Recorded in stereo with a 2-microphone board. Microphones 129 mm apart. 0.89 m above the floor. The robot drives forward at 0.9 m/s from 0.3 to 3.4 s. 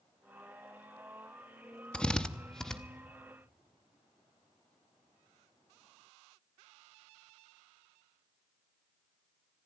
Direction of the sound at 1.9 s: 5° left (ahead or behind).